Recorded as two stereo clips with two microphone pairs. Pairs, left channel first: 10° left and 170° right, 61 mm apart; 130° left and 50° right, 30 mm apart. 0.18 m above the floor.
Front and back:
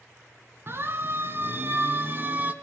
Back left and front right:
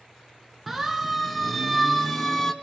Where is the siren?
135° right, 2 m; by 2.5 s 175° right, 1.5 m.